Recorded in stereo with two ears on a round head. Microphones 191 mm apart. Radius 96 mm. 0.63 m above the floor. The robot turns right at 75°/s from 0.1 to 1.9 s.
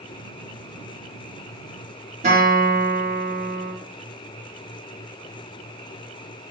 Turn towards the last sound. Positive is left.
turn(degrees=-30)  # may be behind; listen again after turning